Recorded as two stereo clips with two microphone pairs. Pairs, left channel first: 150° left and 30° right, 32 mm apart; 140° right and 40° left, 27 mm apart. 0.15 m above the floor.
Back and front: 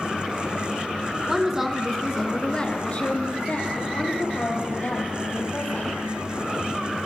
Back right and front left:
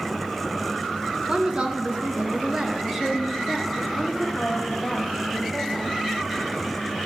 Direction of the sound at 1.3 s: 15° left.